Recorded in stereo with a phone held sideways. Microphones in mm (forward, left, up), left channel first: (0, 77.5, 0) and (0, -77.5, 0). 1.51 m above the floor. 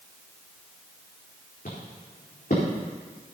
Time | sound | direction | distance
1.6 | footsteps | 70° left (ahead or behind) | 4 m